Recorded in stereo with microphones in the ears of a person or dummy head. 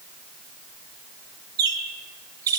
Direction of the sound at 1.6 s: 25° right (ahead or behind).